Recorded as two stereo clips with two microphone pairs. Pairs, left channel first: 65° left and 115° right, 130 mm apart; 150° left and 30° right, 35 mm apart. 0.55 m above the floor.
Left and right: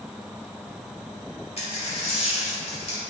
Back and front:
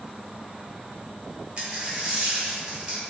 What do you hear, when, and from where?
1.6 s a dropped coin: 25° left, 0.9 m